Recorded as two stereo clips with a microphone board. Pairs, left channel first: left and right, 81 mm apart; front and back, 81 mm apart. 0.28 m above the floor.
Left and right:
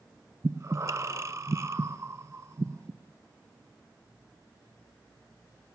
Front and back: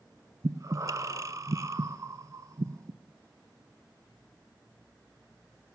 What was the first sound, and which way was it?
Breathing, 135° right.